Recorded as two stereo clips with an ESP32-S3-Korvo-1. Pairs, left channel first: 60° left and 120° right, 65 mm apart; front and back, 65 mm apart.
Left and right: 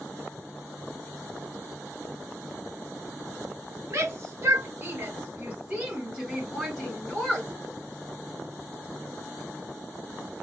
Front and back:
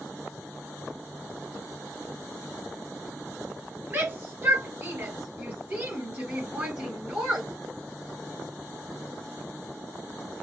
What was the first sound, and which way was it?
A shout, 130° right.